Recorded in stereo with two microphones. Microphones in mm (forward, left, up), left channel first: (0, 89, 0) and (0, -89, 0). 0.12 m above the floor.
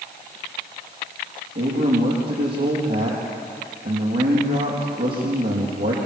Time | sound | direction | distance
1.6 | a man speaking | 75° right (ahead or behind) | 5.5 m